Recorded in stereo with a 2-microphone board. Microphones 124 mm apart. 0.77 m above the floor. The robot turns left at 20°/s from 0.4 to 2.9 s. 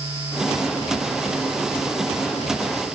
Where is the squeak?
No squeak in this recording.